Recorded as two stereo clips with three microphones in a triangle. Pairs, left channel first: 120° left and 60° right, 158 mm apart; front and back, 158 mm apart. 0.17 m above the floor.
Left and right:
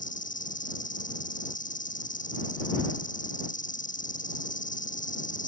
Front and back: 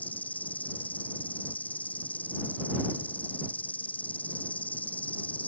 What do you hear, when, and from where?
0.0 s an insect: 80° left